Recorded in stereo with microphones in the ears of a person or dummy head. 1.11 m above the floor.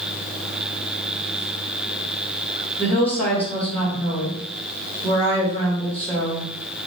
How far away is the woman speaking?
About 1.7 m.